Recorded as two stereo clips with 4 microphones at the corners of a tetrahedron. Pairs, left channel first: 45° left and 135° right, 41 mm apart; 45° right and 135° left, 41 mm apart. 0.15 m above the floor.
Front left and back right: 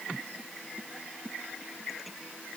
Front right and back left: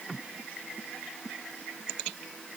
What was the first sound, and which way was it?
Only background noise.